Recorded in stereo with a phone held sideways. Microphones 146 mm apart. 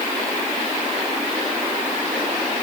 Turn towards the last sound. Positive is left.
No sound to turn to.